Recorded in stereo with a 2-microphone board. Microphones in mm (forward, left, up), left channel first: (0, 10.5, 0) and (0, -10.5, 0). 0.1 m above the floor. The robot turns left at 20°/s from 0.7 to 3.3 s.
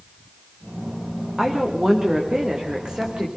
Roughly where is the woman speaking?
Ahead.